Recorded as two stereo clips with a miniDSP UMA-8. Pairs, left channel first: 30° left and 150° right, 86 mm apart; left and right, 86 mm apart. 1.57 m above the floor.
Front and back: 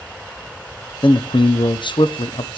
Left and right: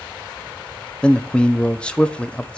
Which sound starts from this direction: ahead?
A man speaking, at 1.0 s.